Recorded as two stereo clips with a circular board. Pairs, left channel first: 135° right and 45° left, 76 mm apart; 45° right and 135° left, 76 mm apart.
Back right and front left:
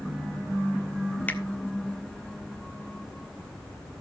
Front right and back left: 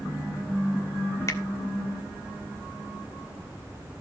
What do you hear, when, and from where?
1.3 s a finger snap: 75° right, 1.5 m